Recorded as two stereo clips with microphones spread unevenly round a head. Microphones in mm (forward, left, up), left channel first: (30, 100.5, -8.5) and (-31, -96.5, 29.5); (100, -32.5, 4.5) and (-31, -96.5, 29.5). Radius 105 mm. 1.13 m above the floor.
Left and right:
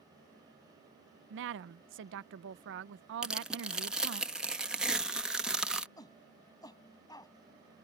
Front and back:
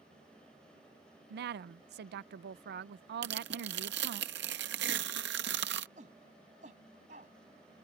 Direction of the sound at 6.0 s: 145° left.